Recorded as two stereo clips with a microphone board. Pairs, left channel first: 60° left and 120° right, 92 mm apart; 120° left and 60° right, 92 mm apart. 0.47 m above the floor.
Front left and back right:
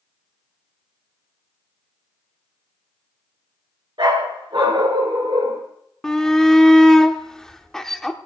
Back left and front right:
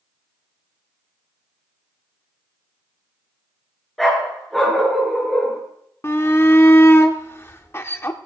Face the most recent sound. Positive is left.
turn(degrees=140)